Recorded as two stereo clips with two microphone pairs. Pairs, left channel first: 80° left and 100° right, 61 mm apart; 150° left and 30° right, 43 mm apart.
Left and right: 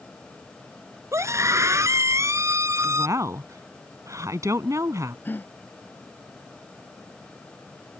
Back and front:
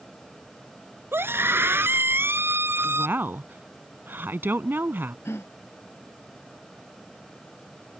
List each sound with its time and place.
1.1 s a scream: 60° right
2.8 s a woman speaking: 65° right
5.2 s a gasp: 140° left